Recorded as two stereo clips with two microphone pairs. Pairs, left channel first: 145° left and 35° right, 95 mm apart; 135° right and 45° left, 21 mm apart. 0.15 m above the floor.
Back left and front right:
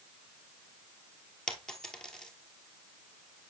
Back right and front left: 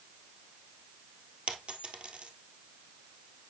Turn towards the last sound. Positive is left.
turn(degrees=65)